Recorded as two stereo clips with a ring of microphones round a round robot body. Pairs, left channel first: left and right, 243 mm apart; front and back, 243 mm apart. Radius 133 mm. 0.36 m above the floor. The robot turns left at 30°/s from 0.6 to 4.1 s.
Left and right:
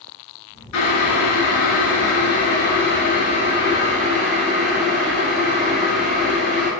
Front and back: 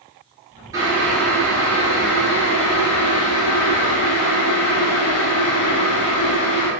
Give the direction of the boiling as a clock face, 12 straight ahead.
9 o'clock.